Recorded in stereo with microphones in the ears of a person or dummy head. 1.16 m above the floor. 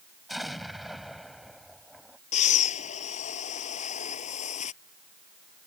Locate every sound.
0.3 s an explosion: 5° left (ahead or behind)
2.3 s breathing: 35° left (ahead or behind)